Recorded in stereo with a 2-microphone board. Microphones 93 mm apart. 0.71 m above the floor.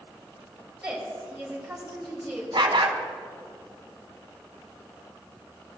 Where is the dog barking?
60° right (ahead or behind), 1.2 m.